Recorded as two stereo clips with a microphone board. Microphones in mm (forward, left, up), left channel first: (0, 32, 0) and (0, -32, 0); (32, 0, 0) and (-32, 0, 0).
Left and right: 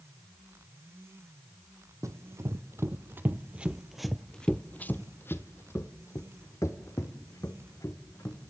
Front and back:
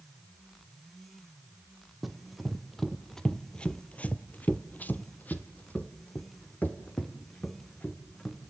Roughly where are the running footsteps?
Right.